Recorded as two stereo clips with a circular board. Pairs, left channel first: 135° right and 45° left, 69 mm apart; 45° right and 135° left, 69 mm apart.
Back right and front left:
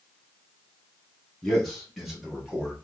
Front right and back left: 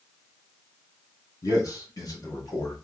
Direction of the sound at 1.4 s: 50° right.